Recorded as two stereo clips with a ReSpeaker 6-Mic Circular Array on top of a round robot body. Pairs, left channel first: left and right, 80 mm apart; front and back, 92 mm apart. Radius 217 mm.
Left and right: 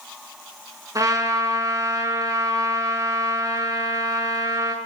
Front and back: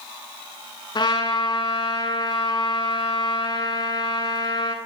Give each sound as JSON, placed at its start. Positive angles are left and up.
{"t": 0.9, "sound": "a trumpet", "azimuth_deg": -45, "distance_m": 7.5}